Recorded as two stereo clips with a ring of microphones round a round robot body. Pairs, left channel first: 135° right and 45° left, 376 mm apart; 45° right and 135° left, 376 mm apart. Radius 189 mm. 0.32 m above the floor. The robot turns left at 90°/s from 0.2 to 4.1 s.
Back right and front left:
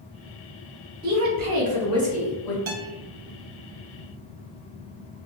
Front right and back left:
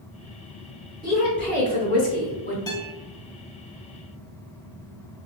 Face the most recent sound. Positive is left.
turn(degrees=-95)